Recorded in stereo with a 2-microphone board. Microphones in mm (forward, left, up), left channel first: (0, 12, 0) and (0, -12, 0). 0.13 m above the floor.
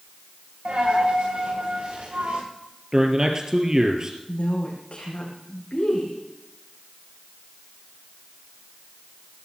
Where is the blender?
I don't hear a blender.